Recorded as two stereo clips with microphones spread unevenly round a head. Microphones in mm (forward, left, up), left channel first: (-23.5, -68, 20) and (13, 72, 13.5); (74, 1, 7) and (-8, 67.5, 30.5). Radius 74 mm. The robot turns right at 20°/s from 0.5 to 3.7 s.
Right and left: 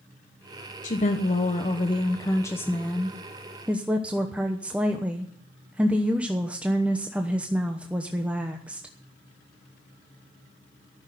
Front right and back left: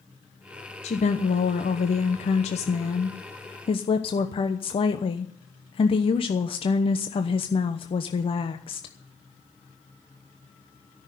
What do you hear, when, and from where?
0.8 s a woman speaking: 65° right, 0.9 m; by 8.9 s 5° right, 0.9 m